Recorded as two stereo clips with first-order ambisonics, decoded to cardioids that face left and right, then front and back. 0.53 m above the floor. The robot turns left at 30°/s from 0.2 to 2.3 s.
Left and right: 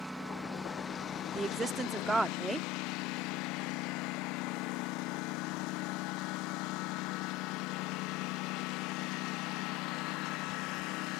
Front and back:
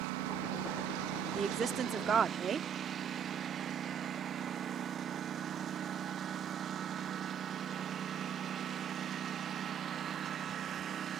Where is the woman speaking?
135° right; by 2.7 s 165° right.